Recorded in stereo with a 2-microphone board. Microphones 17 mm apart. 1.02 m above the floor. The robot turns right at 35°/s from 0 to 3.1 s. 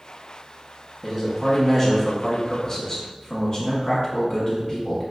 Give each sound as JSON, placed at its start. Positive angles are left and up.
{"t": 1.0, "sound": "a man speaking", "azimuth_deg": -5, "distance_m": 0.9}